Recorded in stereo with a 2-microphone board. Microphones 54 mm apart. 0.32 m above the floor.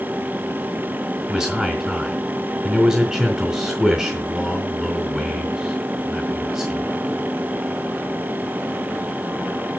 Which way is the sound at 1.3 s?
10° right (ahead or behind).